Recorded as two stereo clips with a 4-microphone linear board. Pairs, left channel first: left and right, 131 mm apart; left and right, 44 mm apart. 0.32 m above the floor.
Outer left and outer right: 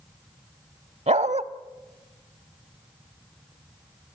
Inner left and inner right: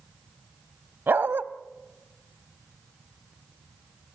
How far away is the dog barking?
About 0.7 m.